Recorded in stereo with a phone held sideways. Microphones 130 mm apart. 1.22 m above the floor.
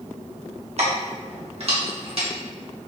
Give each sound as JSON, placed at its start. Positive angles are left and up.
{"t": 0.8, "sound": "keys jangling", "side_deg": -55, "distance_m": 1.2}